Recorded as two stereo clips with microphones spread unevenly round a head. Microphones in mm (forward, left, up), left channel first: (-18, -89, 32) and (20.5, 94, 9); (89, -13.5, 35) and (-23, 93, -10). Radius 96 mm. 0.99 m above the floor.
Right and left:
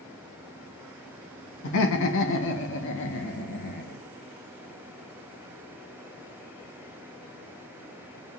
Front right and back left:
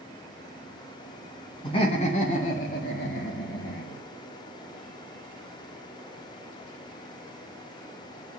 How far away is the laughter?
About 2 m.